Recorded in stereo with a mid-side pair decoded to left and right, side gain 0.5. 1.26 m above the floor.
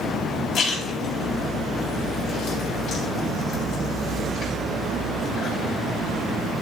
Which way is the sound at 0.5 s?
70° left.